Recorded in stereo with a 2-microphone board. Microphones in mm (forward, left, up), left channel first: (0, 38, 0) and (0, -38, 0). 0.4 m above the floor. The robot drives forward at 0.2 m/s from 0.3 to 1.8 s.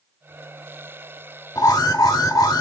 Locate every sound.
1.6 s an alarm: 50° left (ahead or behind), 0.7 m